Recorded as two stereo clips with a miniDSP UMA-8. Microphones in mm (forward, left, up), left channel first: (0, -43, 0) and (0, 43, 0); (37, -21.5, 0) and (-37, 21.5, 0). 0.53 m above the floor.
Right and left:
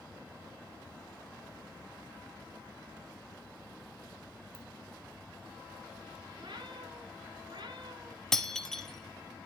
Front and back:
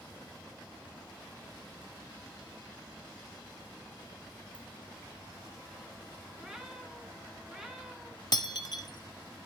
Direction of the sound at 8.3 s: 5° right.